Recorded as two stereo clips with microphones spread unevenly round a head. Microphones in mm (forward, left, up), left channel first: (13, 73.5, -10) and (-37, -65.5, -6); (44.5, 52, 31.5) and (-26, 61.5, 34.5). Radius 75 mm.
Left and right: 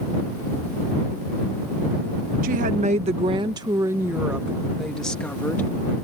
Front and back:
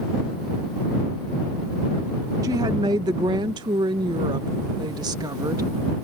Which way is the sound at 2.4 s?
140° right.